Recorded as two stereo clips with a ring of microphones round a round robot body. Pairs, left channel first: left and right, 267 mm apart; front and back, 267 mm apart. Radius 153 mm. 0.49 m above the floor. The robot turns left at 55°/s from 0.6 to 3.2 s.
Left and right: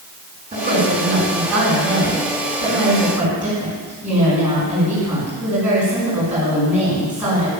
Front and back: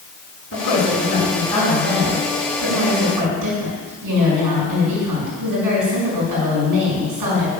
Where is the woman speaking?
30° right, 6.5 m; by 7.5 s 175° right, 6.5 m.